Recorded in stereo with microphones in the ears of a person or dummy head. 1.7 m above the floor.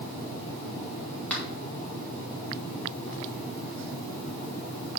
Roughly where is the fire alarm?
I don't hear a fire alarm.